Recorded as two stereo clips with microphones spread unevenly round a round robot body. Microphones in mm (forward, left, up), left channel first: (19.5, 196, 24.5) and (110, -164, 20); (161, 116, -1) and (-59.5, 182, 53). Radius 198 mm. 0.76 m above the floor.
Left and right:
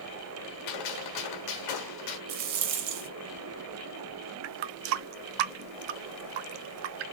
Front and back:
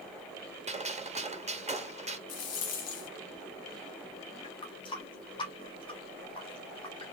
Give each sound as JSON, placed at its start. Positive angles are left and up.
{"t": 0.7, "sound": "a gunshot", "azimuth_deg": 95, "distance_m": 1.8}
{"t": 2.3, "sound": "a rattle", "azimuth_deg": -50, "distance_m": 1.1}
{"t": 4.4, "sound": "a running tap", "azimuth_deg": -85, "distance_m": 0.6}